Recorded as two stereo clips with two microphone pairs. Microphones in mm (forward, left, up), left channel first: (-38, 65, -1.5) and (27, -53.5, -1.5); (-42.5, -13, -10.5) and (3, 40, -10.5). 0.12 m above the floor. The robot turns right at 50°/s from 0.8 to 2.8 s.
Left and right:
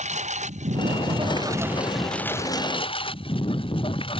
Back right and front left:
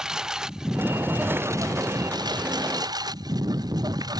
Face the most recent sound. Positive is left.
turn(degrees=70)